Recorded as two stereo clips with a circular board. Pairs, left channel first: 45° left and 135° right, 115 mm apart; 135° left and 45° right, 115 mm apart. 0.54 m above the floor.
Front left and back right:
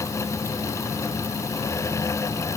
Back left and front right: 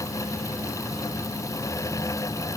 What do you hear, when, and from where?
Only background noise.